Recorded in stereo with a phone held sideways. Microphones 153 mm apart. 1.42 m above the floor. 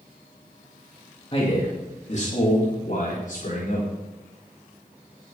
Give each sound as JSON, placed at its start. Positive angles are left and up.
{"t": 1.3, "sound": "a man speaking", "side_deg": 40, "distance_m": 2.0}